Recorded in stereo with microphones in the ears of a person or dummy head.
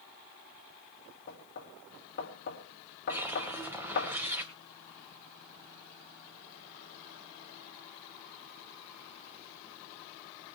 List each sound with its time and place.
1.3 s knocking: 55° left (ahead or behind), 2 m
3.1 s a whoosh: 5° right (ahead or behind), 2 m